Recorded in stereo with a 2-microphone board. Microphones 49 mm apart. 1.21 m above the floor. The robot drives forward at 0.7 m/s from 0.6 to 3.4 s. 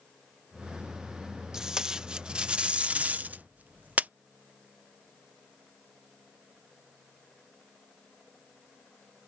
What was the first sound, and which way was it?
Tape being pulled, 15° right (ahead or behind).